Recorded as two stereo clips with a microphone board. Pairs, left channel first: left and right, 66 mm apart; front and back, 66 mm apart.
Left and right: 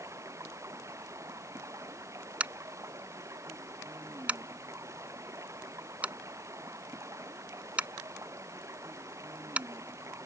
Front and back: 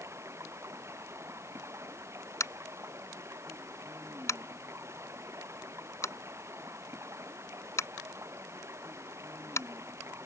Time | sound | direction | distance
0.0 | running water | 135° right | ?
2.4 | tapping | 25° right | ?